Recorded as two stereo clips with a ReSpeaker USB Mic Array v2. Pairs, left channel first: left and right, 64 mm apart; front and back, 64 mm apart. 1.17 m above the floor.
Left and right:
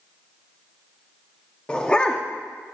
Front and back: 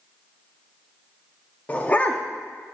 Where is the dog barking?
35° left, 0.7 m.